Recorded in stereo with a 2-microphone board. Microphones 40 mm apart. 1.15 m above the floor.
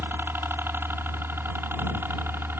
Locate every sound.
0.0 s a helicopter: 65° right (ahead or behind)